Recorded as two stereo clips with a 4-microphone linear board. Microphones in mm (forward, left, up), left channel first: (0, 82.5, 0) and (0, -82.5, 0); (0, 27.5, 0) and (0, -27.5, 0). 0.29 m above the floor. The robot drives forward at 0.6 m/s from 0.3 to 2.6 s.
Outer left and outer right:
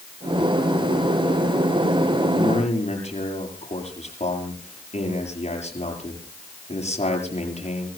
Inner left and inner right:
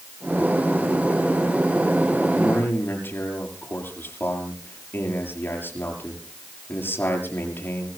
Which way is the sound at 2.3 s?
45° left (ahead or behind).